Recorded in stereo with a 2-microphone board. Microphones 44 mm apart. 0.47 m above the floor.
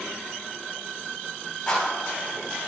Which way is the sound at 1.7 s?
10° left (ahead or behind).